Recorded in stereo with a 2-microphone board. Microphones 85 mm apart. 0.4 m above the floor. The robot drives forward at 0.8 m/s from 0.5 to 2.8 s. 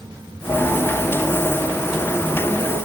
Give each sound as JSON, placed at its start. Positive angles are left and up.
{"t": 0.5, "sound": "a piano", "side_deg": 35, "distance_m": 2.5}